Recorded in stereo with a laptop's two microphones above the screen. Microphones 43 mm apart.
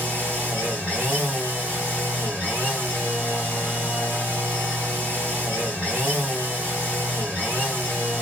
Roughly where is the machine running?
Right.